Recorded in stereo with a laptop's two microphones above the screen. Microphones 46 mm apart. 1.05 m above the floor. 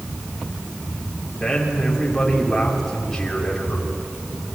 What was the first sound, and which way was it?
A man speaking, 5° left (ahead or behind).